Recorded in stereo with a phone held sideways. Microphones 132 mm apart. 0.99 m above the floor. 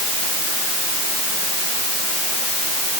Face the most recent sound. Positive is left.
No sound to turn to.